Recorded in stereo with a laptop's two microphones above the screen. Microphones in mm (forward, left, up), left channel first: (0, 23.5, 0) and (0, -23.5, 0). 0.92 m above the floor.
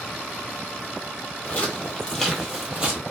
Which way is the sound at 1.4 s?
35° left (ahead or behind).